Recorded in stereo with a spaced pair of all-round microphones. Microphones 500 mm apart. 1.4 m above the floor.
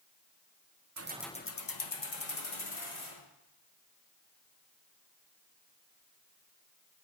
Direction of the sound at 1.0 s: 35° right (ahead or behind).